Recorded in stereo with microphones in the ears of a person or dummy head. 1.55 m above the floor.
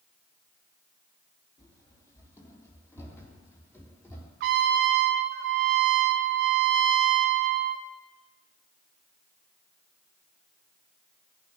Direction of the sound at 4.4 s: 60° right (ahead or behind).